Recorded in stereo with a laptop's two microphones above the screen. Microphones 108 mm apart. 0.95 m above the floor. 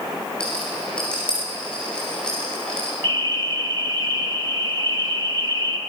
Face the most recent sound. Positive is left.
turn(degrees=-45)  # may be behind; listen again after turning